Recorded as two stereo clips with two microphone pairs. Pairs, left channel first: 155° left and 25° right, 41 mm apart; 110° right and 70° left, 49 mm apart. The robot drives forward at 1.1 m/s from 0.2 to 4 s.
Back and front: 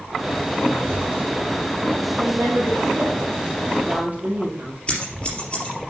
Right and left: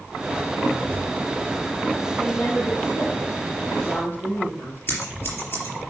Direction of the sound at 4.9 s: 145° right.